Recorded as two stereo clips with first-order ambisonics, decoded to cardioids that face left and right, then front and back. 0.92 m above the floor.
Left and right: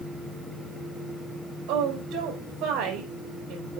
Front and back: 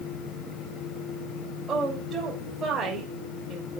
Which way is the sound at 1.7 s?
115° right.